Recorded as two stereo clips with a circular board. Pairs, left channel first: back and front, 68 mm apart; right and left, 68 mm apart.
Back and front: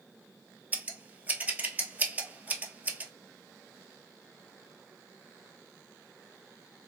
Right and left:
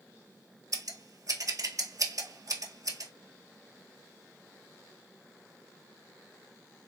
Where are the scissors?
65° left, 0.7 m.